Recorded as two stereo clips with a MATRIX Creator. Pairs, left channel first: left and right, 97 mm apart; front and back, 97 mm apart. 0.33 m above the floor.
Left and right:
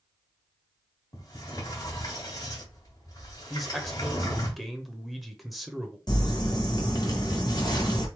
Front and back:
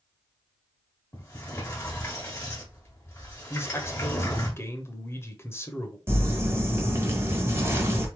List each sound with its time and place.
1.1 s a sliding door: 55° left, 2.5 m
3.5 s a man speaking: straight ahead, 0.9 m
6.1 s crumpling: 120° left, 1.5 m